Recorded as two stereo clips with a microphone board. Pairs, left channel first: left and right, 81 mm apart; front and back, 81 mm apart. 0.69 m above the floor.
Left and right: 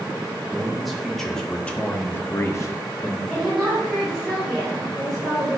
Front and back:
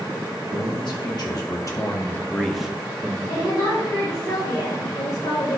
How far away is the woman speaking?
About 3.5 m.